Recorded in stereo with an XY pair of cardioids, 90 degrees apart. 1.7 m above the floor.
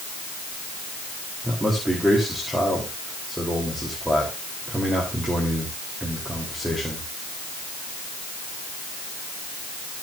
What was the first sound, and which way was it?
A man speaking, 5° right.